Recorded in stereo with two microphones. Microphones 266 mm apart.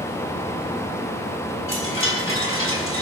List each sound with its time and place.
1.7 s a chime: 50° left (ahead or behind), 6 m